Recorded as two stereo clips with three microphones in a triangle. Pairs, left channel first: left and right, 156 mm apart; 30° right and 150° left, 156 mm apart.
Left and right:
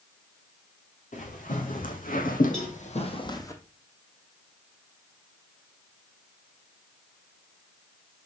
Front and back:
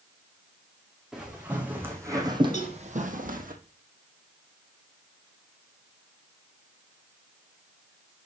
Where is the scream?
No scream in this recording.